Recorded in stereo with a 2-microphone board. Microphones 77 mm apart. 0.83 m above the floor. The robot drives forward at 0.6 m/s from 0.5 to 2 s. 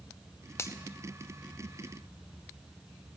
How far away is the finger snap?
About 0.5 m.